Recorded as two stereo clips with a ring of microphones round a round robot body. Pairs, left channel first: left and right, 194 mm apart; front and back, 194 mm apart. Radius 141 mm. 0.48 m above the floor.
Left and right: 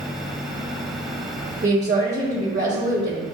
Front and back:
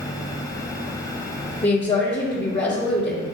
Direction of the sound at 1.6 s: 50° right.